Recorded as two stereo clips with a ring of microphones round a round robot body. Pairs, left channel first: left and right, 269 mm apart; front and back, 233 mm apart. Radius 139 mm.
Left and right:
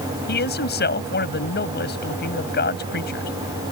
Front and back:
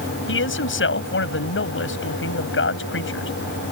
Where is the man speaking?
35° left.